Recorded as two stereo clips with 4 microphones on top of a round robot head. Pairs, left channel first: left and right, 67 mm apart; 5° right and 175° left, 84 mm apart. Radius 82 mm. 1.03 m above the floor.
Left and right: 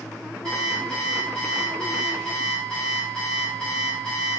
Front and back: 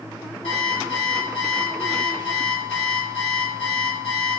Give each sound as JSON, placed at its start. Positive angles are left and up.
{"t": 0.4, "sound": "an alarm clock", "azimuth_deg": 5, "distance_m": 1.8}